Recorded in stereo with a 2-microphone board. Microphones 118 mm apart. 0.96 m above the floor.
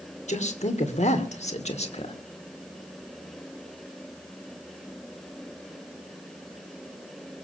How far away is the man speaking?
About 2.5 m.